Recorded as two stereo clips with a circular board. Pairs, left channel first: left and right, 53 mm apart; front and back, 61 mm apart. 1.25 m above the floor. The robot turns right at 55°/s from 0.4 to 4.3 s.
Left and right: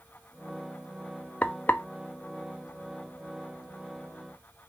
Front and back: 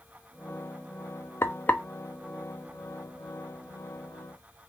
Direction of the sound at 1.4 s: 35° left.